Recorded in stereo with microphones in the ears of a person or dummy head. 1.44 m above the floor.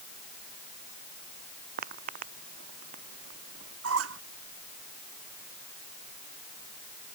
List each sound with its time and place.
1.8 s footsteps: 50° right (ahead or behind); by 3.7 s 45° right (ahead or behind)
3.8 s a squeak: 85° right